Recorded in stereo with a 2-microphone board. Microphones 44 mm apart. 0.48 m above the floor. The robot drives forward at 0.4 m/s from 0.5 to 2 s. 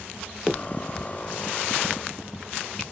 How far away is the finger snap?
About 0.5 m.